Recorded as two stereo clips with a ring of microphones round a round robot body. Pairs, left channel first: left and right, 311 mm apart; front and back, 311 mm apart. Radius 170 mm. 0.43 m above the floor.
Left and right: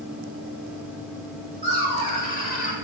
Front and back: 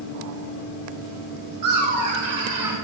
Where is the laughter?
160° left, 2.0 m; by 2.8 s 90° left, 0.8 m.